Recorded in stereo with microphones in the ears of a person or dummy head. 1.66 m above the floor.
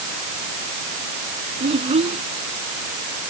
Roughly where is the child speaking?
Right.